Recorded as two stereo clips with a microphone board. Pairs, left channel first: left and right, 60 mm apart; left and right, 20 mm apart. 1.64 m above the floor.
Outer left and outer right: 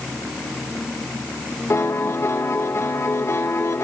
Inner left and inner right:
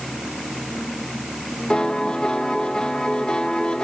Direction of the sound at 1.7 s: 45° left (ahead or behind).